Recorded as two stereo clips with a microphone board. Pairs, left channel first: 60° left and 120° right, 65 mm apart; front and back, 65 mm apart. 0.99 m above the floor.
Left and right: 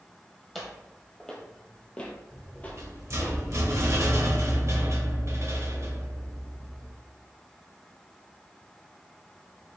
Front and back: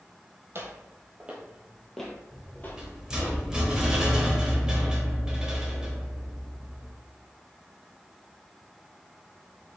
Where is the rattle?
105° right, 1.0 m.